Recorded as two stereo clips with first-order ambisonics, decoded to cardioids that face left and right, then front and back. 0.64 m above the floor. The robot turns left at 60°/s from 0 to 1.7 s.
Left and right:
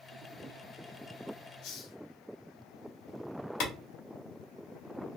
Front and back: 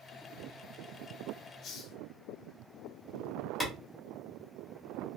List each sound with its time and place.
1.6 s a hiss: 60° left, 0.7 m; by 2.0 s 55° left, 0.7 m
3.6 s a clap: 75° left, 1.2 m